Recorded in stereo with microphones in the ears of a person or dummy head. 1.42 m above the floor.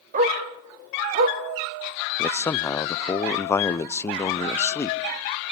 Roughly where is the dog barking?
Right.